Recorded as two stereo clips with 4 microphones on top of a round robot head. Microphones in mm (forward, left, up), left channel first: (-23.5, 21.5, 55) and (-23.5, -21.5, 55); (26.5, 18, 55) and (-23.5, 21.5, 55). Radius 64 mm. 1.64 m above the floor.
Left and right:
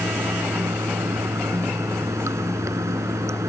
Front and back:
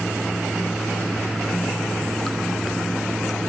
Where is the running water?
95° right.